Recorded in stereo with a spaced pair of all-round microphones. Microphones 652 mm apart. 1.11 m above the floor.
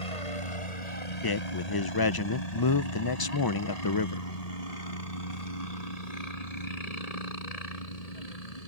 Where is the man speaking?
35° left (ahead or behind).